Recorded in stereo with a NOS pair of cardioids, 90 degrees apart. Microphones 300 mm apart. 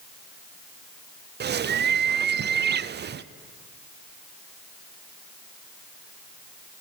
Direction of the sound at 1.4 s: 35° right.